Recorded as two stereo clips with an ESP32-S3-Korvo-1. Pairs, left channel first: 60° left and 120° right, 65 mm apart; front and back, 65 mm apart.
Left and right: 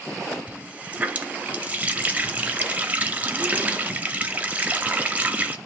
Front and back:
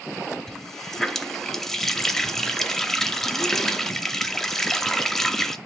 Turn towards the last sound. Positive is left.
turn(degrees=-80)